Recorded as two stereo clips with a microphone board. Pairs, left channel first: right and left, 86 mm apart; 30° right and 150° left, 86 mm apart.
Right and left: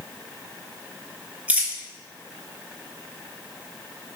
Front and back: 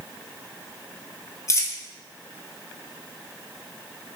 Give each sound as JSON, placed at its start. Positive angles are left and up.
{"t": 1.5, "sound": "a dropped coin", "azimuth_deg": 20, "distance_m": 0.7}